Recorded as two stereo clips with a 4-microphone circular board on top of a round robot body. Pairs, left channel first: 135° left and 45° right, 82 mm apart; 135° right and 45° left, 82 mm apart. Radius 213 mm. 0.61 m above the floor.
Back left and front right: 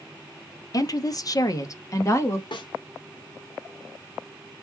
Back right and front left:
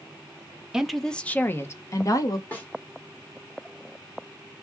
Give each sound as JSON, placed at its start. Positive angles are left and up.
{"t": 0.7, "sound": "a woman speaking", "azimuth_deg": 125, "distance_m": 0.9}
{"t": 2.5, "sound": "a snare drum", "azimuth_deg": 155, "distance_m": 1.5}